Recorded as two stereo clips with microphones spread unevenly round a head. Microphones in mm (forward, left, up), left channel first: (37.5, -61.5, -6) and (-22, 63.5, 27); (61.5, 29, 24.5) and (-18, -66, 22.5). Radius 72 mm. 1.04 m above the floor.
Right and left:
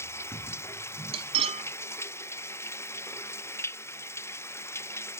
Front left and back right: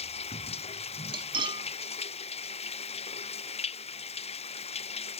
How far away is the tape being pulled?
I don't hear tape being pulled.